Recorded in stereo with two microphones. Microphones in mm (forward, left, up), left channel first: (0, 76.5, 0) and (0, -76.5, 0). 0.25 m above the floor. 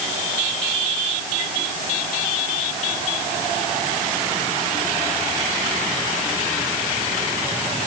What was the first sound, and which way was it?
Only background noise.